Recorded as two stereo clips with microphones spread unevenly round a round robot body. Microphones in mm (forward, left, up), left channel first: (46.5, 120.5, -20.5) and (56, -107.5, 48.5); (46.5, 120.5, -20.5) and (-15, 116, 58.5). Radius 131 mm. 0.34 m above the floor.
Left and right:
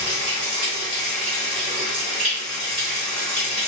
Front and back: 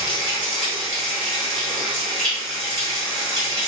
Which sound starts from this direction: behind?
Running water, at 0.0 s.